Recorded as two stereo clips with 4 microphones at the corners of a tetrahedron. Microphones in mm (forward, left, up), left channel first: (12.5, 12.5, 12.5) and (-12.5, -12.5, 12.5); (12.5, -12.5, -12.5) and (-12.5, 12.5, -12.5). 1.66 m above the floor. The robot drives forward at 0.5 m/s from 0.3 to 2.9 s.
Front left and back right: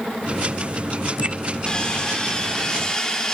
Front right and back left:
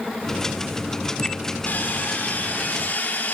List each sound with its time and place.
1.7 s sawing: 20° right, 3 m